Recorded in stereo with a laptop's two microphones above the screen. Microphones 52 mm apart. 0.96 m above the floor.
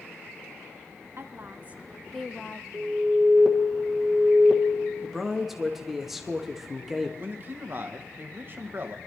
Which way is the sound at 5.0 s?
5° right (ahead or behind).